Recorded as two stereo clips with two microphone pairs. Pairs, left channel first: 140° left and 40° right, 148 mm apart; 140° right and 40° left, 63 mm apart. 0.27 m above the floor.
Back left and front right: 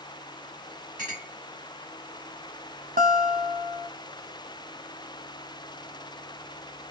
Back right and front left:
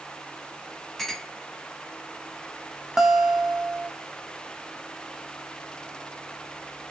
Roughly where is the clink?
Ahead right.